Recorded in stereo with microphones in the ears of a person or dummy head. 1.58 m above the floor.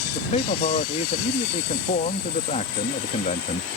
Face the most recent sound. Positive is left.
turn(degrees=35)  # may be behind; listen again after turning